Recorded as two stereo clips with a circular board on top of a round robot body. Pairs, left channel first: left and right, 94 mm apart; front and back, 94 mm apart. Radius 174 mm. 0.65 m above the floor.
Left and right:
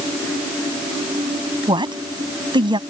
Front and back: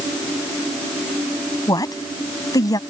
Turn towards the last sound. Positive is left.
turn(degrees=-50)